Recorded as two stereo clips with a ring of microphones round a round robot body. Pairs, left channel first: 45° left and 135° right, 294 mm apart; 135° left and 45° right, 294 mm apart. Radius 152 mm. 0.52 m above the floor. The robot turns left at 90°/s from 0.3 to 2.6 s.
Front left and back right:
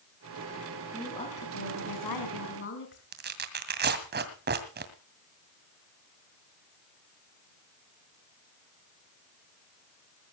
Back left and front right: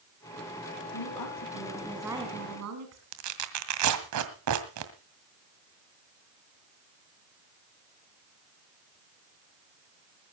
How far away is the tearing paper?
About 2 m.